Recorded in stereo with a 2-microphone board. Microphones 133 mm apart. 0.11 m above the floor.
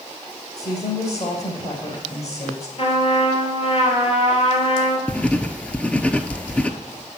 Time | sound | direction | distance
0.6 | a woman speaking | 55° left (ahead or behind) | 3 m
2.8 | a trumpet | 45° left (ahead or behind) | 2.5 m
5.1 | writing | 10° left (ahead or behind) | 0.7 m